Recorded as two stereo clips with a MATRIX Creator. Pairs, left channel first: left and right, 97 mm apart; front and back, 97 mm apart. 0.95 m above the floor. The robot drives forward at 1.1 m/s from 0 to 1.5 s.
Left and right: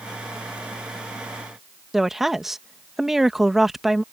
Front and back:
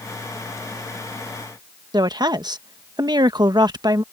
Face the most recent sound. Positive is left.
turn(degrees=-175)